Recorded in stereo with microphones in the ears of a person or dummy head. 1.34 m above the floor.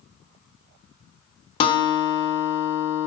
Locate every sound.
1.6 s a guitar: 30° left (ahead or behind), 0.9 m